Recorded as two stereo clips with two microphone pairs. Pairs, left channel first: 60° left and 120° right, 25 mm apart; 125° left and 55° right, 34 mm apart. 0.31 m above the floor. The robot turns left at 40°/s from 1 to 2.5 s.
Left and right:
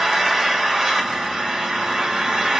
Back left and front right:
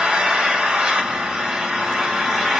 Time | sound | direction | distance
0.0 | an engine running | 70° right | 0.7 m